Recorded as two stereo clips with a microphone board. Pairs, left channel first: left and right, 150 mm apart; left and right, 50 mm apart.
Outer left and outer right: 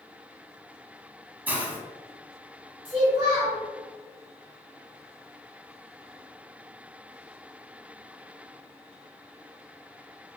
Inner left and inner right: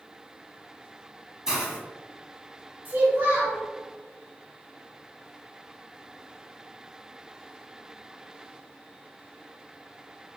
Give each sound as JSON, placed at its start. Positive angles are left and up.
{"t": 1.5, "sound": "a hiss", "side_deg": -10, "distance_m": 0.8}
{"t": 2.9, "sound": "a child speaking", "side_deg": -40, "distance_m": 1.3}